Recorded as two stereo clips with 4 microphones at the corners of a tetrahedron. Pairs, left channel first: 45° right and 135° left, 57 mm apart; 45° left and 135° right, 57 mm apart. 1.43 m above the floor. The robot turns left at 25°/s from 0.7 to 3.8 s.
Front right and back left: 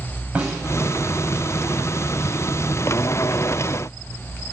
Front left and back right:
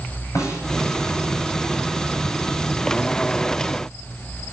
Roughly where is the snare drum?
Ahead left.